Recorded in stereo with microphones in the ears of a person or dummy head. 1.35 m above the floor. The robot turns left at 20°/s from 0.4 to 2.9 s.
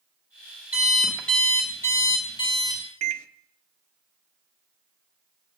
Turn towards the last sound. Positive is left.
turn(degrees=-40)  # may be behind; listen again after turning